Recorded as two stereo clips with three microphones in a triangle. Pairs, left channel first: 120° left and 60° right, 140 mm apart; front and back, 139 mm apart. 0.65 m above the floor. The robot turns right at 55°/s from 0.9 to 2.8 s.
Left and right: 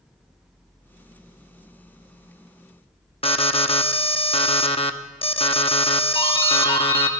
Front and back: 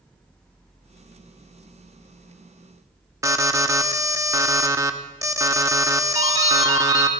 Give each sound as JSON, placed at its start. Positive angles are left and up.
{"t": 3.2, "sound": "an alarm", "azimuth_deg": 125, "distance_m": 0.7}
{"t": 6.2, "sound": "a doorbell", "azimuth_deg": 165, "distance_m": 2.5}